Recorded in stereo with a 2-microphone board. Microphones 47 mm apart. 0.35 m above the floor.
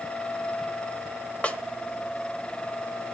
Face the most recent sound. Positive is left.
turn(degrees=25)  # may be behind; listen again after turning